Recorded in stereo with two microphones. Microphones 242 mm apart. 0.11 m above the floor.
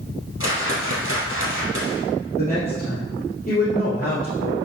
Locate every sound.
0.4 s a whoosh: 50° left (ahead or behind), 3 m
2.4 s a woman speaking: 35° left (ahead or behind), 3 m